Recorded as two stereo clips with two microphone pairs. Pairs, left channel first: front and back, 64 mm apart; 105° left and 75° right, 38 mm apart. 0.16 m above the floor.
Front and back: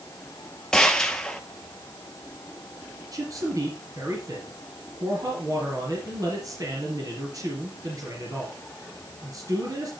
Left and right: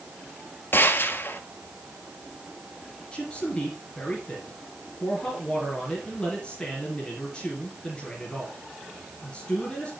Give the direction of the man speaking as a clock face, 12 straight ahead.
6 o'clock.